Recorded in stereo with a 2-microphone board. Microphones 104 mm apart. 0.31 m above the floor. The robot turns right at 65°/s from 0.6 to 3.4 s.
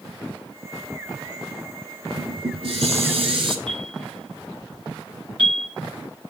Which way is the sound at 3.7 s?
60° right (ahead or behind).